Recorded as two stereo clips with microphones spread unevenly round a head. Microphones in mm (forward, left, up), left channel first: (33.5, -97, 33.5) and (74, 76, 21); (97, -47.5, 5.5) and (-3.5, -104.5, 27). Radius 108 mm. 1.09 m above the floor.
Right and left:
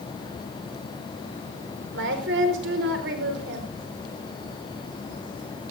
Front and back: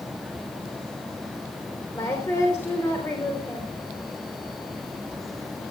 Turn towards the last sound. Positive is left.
turn(degrees=105)